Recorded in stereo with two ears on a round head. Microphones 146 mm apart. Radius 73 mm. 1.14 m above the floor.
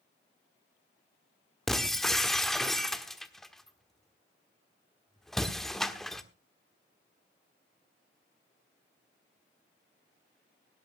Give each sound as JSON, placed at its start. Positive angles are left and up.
{"t": 1.7, "sound": "breaking glass", "side_deg": 5, "distance_m": 1.2}